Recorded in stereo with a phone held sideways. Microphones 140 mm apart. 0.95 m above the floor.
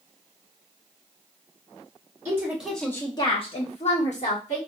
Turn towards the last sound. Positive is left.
turn(degrees=60)  # may be behind; listen again after turning